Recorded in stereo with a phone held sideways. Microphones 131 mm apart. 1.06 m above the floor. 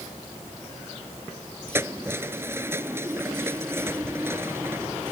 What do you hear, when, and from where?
1.7 s keys jangling: 20° right (ahead or behind)